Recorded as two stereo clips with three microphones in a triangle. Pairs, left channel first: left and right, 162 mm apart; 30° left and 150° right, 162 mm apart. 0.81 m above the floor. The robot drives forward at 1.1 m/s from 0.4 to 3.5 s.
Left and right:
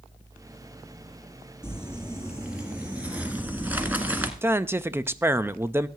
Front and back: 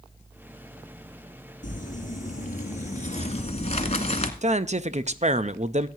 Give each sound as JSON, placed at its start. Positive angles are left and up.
{"t": 1.6, "sound": "crumpling", "azimuth_deg": -5, "distance_m": 3.5}
{"t": 4.4, "sound": "a man speaking", "azimuth_deg": -160, "distance_m": 0.5}